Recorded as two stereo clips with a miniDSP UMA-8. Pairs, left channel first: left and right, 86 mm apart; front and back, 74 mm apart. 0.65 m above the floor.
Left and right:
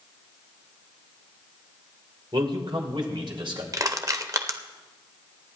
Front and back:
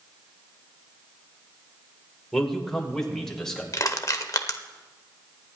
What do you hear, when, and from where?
2.3 s a man speaking: 85° right, 2 m
3.7 s crushing: 45° right, 0.9 m